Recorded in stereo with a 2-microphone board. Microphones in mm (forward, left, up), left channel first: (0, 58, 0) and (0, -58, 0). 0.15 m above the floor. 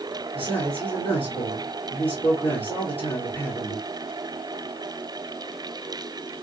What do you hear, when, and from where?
0.3 s a man speaking: 50° left (ahead or behind), 3 m